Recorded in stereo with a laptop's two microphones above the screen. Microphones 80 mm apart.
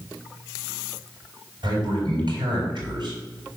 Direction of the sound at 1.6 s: 70° right (ahead or behind).